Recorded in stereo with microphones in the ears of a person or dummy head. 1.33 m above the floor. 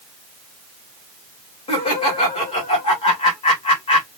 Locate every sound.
1.7 s laughter: 30° left (ahead or behind), 2.5 m